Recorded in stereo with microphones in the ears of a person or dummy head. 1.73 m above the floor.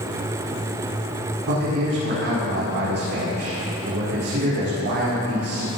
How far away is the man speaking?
About 5.5 m.